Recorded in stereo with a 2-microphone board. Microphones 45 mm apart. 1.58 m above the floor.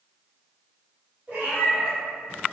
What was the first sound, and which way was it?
A cat meowing, 35° right (ahead or behind).